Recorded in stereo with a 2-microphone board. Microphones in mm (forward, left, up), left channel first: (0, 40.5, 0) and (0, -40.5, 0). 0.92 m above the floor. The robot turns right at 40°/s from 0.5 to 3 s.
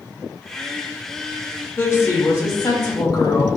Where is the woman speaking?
35° left, 1.5 m; by 3.5 s 85° left, 1.5 m.